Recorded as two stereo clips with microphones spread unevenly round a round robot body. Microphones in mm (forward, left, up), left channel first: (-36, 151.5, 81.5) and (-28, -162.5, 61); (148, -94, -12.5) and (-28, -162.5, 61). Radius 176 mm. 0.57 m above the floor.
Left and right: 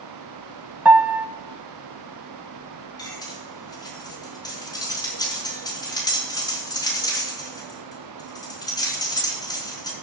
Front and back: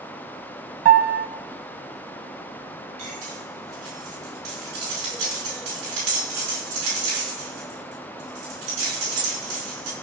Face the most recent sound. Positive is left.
turn(degrees=170)